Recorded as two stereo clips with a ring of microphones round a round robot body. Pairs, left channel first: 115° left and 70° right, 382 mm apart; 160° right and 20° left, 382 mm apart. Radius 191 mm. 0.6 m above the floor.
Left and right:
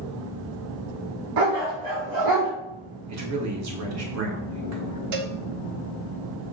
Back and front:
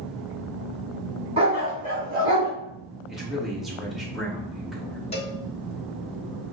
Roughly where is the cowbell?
Right.